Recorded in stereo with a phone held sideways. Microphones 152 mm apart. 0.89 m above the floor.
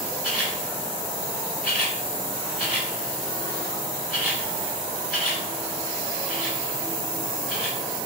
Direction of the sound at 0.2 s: 5° right (ahead or behind).